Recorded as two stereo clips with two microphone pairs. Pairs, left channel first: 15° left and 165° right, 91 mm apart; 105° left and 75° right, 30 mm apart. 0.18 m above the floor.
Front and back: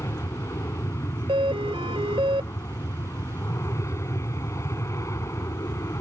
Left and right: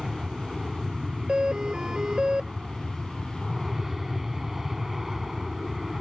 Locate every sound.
0.0 s an aircraft: 10° right; by 6.0 s 5° right
1.3 s a doorbell: 145° right